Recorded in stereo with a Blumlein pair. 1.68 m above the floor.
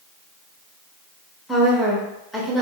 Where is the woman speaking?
5° left, 0.8 m.